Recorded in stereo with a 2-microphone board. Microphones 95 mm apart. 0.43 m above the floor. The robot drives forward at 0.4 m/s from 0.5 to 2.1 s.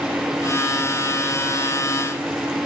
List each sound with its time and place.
Only background noise.